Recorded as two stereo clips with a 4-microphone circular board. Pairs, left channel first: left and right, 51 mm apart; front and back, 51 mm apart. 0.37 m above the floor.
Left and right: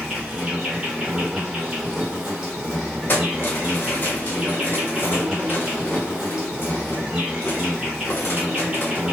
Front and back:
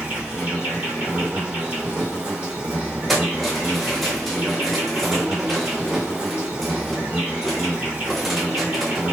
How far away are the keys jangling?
About 0.7 m.